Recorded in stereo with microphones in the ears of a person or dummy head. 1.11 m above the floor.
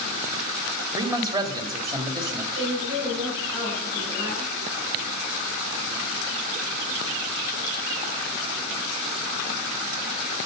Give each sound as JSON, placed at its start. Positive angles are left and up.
{"t": 0.9, "sound": "a man speaking", "side_deg": -20, "distance_m": 2.5}
{"t": 2.5, "sound": "a woman speaking", "side_deg": -20, "distance_m": 6.0}